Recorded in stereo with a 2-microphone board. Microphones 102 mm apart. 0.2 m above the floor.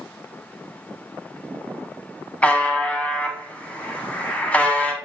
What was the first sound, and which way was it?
A buzzer, 15° left (ahead or behind).